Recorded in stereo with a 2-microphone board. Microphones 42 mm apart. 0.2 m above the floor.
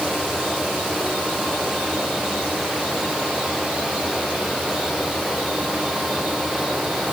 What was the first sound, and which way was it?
Only background noise.